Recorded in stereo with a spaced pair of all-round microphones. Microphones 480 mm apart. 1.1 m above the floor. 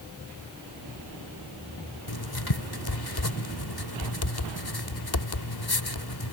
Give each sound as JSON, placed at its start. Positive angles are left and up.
{"t": 2.1, "sound": "writing", "side_deg": 50}